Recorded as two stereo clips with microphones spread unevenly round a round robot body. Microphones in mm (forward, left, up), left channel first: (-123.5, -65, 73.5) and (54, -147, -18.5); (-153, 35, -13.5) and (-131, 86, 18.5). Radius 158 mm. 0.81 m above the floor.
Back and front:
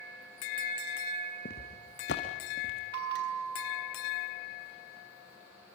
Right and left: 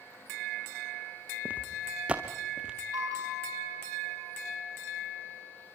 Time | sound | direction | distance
1.4 | footsteps | 115° left | 2.5 m
2.9 | a bell | 20° left | 3.5 m